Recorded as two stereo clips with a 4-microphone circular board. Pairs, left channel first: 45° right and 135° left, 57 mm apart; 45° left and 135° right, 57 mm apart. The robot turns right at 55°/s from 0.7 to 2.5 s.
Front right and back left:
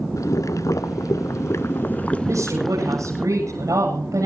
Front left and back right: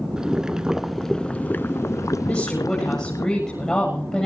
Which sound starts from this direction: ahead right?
Boiling, at 0.2 s.